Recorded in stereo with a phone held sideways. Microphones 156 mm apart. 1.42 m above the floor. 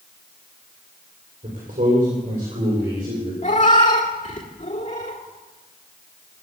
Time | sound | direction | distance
1.4 | a man speaking | 65° right (ahead or behind) | 5 m
3.4 | a cat meowing | 55° left (ahead or behind) | 1.8 m